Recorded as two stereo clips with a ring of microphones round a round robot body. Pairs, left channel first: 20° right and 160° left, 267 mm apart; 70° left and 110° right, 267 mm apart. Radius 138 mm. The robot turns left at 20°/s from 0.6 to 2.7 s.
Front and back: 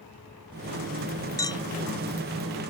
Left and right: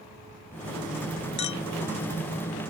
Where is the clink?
55° left; by 1.6 s 50° left.